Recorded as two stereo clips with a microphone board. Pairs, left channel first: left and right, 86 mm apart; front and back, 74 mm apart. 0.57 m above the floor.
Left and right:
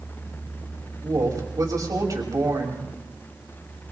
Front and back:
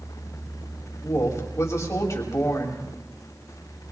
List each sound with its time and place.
1.0 s a woman speaking: 45° right, 3 m